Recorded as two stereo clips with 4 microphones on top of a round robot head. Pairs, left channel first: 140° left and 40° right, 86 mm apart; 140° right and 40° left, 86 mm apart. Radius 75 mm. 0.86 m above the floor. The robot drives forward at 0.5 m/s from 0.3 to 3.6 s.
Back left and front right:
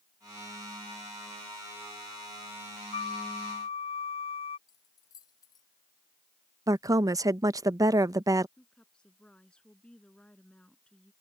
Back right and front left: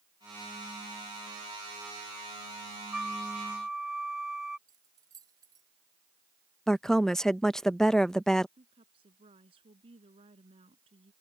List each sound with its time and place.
2.9 s a flute: 125° left
4.7 s keys jangling: 90° left
6.7 s a woman speaking: 60° right
8.6 s a woman speaking: 60° left